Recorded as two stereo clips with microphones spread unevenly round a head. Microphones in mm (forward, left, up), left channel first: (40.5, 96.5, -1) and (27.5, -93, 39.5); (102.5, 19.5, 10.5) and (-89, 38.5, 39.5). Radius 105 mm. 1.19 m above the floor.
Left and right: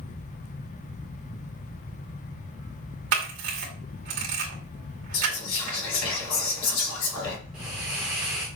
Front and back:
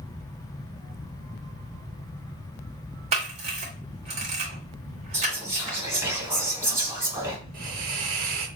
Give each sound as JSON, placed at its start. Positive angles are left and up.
{"t": 3.1, "sound": "a camera shutter", "azimuth_deg": -125, "distance_m": 2.0}
{"t": 5.1, "sound": "whispering", "azimuth_deg": 95, "distance_m": 2.5}
{"t": 7.5, "sound": "a hiss", "azimuth_deg": -170, "distance_m": 1.2}